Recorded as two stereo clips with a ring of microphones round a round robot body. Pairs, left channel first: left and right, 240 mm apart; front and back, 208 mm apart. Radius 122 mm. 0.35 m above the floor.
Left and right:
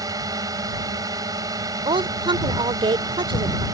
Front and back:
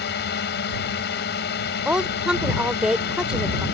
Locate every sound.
0.0 s a drone: 20° right
1.9 s a woman speaking: 100° right